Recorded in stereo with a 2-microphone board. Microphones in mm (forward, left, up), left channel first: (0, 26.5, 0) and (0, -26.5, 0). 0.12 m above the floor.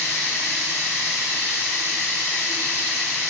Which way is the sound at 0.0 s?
60° left (ahead or behind).